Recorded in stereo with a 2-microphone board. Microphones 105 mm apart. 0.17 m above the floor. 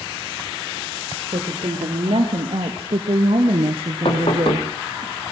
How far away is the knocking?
About 4 m.